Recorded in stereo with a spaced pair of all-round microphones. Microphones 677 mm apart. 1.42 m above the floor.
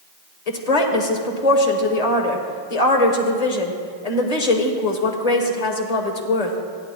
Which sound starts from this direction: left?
A woman speaking, at 0.5 s.